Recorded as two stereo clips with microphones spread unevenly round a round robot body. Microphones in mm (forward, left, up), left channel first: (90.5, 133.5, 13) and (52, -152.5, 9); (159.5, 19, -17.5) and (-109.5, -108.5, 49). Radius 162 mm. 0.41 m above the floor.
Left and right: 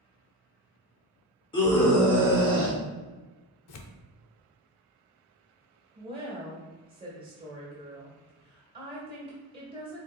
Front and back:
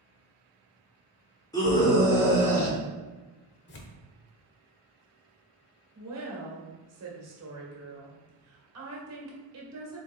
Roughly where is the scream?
Ahead left.